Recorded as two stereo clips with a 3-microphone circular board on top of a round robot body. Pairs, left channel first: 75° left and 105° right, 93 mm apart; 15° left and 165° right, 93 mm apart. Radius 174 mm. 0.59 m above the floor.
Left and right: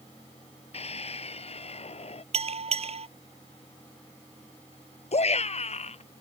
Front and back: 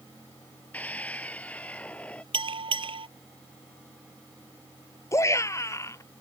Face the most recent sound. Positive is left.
turn(degrees=75)